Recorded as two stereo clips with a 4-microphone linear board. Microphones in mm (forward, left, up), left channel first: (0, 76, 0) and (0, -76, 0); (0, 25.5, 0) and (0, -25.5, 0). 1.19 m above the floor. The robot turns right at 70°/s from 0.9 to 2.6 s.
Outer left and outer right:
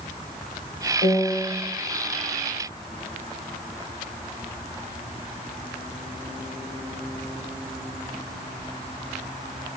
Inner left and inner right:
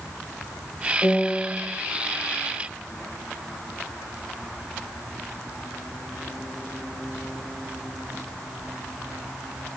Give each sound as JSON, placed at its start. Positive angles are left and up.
{"t": 1.0, "sound": "a piano", "azimuth_deg": 135, "distance_m": 2.5}